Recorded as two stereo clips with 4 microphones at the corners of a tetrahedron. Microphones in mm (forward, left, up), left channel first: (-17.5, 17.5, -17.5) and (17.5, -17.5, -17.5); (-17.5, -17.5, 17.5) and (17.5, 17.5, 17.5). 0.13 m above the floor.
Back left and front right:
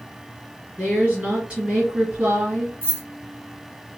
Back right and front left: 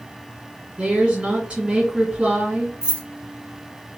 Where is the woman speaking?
5° right, 1.8 m.